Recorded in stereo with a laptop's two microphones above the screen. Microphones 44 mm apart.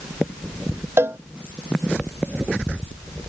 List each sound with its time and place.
1.0 s a cowbell: 65° right (ahead or behind)